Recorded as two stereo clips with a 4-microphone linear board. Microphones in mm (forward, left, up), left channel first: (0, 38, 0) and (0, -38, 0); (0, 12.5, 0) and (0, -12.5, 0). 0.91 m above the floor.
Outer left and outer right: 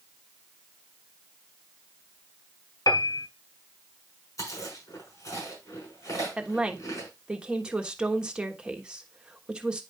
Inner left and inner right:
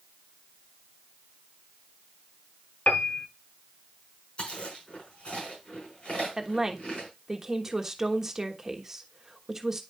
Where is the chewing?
50° left (ahead or behind), 5.5 m.